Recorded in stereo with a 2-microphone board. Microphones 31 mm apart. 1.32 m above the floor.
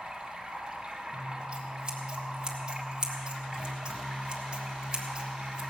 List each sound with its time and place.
0.0 s running water: 20° right (ahead or behind), 1.8 m
1.1 s scissors: 25° right (ahead or behind), 1.4 m